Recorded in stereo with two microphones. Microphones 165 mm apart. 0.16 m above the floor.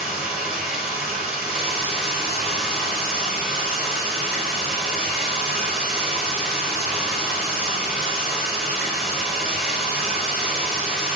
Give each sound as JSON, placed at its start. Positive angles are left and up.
{"t": 0.0, "sound": "running water", "side_deg": -5, "distance_m": 2.0}